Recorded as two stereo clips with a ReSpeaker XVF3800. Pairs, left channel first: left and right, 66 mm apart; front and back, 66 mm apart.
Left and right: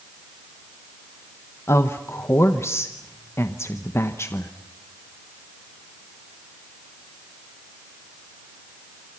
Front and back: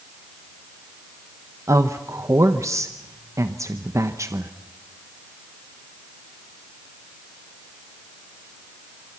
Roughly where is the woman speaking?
Behind left.